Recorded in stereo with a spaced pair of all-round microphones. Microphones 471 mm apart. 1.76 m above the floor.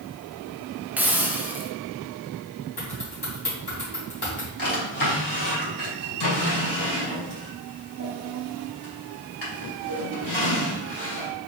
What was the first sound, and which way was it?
A hiss, 5° right (ahead or behind).